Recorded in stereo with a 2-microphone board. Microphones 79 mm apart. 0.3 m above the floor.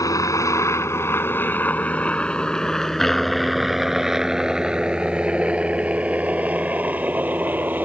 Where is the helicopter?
50° left (ahead or behind); by 7.8 s 25° right (ahead or behind).